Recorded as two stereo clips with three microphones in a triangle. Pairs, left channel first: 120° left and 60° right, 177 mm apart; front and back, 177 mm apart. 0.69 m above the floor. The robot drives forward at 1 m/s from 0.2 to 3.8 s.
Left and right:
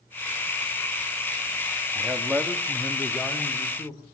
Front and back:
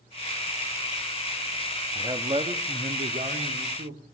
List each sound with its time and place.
1.9 s a man speaking: 130° right, 1.2 m; by 4.0 s 165° right, 2.5 m